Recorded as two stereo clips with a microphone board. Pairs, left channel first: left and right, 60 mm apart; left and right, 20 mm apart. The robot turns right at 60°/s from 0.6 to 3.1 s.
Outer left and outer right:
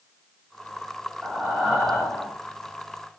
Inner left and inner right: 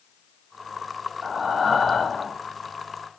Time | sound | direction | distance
1.2 | breathing | 5° right (ahead or behind) | 1.3 m